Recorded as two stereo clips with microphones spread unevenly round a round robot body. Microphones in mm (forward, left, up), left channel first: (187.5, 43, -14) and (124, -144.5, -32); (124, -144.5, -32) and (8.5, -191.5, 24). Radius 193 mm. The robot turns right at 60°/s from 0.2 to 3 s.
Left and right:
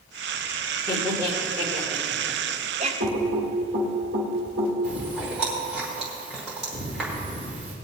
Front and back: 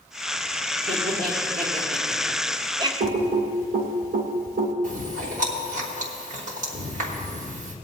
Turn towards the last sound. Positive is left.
turn(degrees=170)